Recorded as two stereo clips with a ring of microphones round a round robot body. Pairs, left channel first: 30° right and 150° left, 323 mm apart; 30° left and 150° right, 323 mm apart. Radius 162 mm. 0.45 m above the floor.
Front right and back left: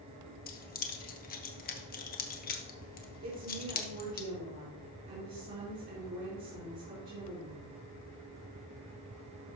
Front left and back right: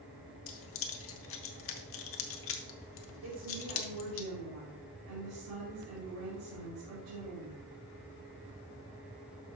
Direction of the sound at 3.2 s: 160° right.